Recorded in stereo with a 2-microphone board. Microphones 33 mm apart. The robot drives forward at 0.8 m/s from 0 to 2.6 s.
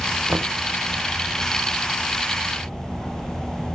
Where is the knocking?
80° right, 0.8 m; by 0.6 s 70° right (ahead or behind), 0.9 m.